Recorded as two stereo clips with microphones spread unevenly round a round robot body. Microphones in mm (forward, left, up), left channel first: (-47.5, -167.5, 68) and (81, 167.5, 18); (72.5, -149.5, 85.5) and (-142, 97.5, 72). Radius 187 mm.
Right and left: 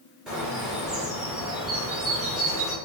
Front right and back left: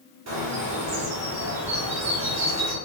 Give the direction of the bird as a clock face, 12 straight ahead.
7 o'clock.